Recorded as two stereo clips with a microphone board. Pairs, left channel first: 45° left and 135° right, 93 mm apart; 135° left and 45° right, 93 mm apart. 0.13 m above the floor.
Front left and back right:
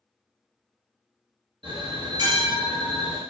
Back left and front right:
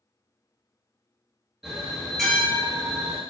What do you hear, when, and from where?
1.6 s a bell: 130° right, 1.1 m